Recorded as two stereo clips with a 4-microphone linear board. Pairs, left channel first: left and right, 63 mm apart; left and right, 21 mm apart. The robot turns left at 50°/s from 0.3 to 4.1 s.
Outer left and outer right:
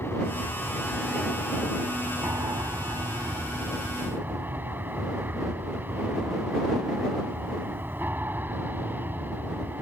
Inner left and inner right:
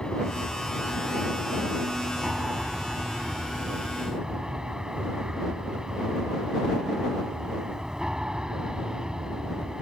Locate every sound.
0.0 s an aircraft: 45° left; by 9.8 s 145° right